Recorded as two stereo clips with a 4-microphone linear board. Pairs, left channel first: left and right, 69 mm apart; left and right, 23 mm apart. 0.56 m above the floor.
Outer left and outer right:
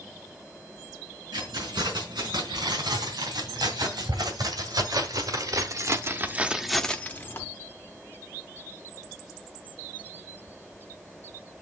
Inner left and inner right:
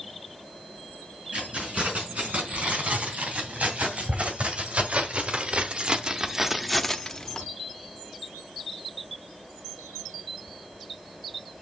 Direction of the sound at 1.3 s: 85° right.